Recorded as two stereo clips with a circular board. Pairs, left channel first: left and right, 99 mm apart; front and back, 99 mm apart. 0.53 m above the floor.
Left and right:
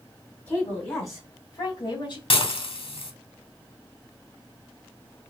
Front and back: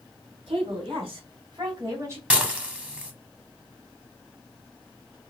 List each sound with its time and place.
0.5 s a woman speaking: 155° left, 3 m; by 2.2 s 120° left, 1.6 m
2.3 s dishes clattering: 105° left, 1.1 m